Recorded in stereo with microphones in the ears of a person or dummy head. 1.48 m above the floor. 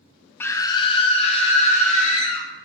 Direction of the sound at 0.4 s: 10° left (ahead or behind).